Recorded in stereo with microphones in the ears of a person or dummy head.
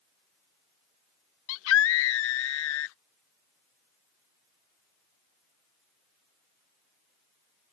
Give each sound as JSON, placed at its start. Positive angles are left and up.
{"t": 1.5, "sound": "a scream", "side_deg": 75}